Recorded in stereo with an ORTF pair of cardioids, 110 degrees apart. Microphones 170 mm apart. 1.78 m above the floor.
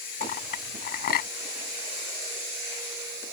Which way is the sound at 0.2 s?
65° left.